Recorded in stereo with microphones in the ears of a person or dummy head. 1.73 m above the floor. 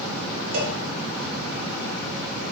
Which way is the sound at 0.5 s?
65° right (ahead or behind).